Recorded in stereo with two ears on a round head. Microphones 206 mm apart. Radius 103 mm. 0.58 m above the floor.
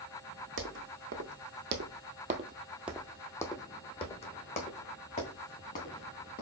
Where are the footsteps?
55° right (ahead or behind), 1.3 m; by 6.4 s 40° left (ahead or behind), 2.5 m.